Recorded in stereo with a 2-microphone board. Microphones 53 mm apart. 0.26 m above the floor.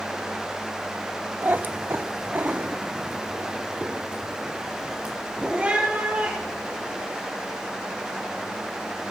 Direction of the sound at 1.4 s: 40° right (ahead or behind).